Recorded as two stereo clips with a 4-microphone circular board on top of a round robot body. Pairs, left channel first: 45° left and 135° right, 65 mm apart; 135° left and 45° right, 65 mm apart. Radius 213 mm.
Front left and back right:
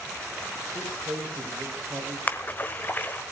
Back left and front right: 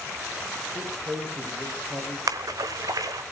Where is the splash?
20° right, 1.1 m.